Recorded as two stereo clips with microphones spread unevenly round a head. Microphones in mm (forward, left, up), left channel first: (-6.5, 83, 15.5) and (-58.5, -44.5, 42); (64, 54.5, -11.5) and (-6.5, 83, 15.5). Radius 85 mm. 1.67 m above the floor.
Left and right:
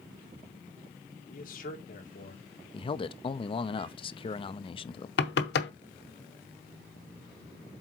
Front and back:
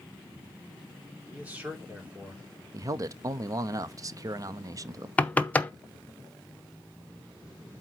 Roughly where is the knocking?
Ahead left.